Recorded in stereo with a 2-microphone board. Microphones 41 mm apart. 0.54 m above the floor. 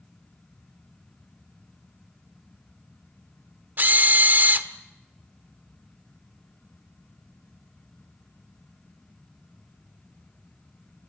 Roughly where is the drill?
Right.